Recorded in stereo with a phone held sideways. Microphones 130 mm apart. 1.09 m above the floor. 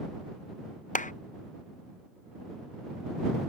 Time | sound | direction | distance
0.9 | a clap | 75° left (ahead or behind) | ?